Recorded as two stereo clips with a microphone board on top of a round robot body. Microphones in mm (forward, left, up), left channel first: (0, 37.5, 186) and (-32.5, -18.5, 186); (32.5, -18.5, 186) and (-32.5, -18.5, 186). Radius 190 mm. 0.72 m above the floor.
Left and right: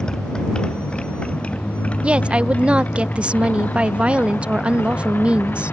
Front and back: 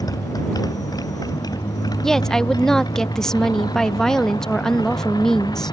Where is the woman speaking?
70° right.